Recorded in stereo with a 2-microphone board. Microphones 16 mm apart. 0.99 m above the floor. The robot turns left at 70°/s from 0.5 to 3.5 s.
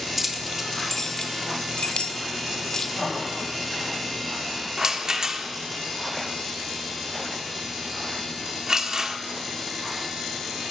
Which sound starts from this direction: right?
A rattle, at 4.8 s.